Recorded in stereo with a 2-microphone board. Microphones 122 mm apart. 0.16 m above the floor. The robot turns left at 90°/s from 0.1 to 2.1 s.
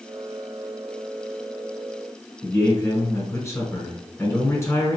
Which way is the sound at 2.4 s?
25° left (ahead or behind).